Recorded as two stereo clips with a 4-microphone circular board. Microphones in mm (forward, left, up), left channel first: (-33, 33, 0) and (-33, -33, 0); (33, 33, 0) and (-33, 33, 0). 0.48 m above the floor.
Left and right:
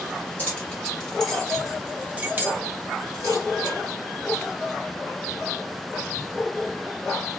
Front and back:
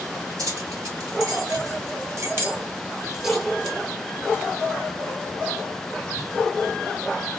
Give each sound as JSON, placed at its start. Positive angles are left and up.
{"t": 0.4, "sound": "keys jangling", "azimuth_deg": 160, "distance_m": 1.8}